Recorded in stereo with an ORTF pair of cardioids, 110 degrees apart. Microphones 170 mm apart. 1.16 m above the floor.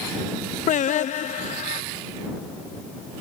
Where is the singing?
45° left.